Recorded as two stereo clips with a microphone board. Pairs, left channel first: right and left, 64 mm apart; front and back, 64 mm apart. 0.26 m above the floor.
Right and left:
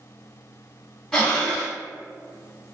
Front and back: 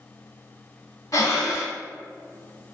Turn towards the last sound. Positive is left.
turn(degrees=-15)